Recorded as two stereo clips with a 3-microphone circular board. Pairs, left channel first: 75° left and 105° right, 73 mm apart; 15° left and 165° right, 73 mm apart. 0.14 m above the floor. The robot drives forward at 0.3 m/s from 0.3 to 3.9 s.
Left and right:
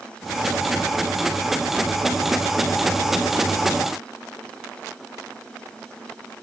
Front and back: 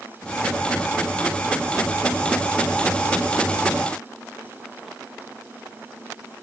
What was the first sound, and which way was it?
Only background noise.